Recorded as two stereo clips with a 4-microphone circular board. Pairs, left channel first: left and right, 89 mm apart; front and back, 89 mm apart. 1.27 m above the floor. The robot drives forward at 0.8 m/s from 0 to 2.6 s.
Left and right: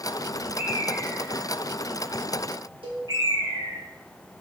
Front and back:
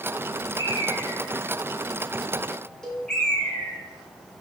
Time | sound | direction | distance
0.6 | a bird | 30° right | 2.5 m
2.8 | a cowbell | 80° right | 1.7 m